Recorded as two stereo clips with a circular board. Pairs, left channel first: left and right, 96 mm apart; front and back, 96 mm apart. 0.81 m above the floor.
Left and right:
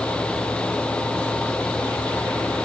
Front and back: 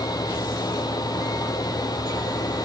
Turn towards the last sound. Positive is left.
No sound to turn to.